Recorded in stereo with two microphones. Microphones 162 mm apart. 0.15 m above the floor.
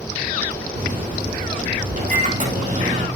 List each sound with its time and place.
0.8 s a microwave: 50° right (ahead or behind), 4.5 m